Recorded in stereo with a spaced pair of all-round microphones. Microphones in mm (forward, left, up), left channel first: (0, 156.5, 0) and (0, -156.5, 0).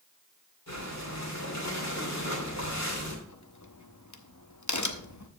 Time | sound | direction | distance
0.7 | breathing | 55° left (ahead or behind) | 2.5 m
3.3 | a crack | 65° left (ahead or behind) | 0.8 m